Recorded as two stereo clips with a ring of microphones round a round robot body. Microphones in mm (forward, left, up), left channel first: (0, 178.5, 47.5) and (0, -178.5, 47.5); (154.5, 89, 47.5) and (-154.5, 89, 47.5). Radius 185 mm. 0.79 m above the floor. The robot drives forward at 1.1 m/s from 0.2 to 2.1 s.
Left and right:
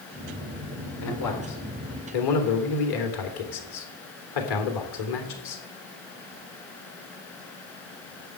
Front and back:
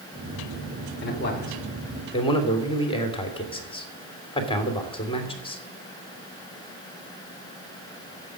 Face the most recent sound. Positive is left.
turn(degrees=75)